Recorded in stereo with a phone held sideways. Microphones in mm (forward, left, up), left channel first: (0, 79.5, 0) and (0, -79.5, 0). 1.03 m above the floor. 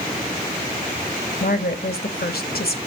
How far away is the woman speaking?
About 1.1 m.